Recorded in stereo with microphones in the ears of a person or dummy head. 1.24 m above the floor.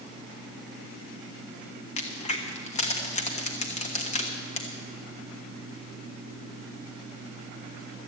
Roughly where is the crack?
Left.